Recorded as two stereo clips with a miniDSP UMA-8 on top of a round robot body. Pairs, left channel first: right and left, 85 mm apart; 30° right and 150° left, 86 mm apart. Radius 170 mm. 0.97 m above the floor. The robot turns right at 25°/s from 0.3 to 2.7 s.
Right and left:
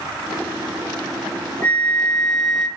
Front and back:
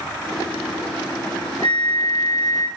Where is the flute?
25° right, 1.6 m; by 2.7 s 5° left, 1.6 m.